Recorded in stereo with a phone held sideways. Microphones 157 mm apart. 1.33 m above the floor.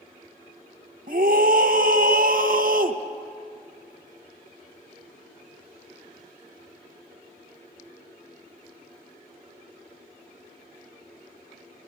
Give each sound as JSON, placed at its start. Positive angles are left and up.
{"t": 1.1, "sound": "a scream", "side_deg": -60, "distance_m": 1.4}